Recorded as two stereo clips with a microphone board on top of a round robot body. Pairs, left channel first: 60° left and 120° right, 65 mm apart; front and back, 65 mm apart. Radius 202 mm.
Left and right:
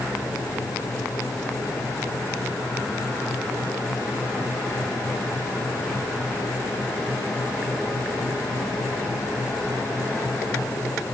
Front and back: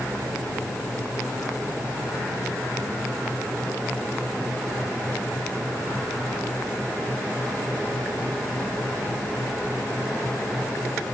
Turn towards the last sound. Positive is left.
No sound to turn to.